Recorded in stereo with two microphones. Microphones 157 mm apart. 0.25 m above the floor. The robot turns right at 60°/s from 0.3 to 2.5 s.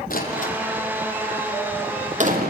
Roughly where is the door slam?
Left.